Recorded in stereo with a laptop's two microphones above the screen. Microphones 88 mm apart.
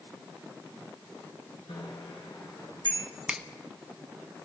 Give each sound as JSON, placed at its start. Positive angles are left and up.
{"t": 1.7, "sound": "a bicycle bell", "side_deg": 70, "distance_m": 9.0}
{"t": 3.3, "sound": "a finger snap", "side_deg": -10, "distance_m": 1.0}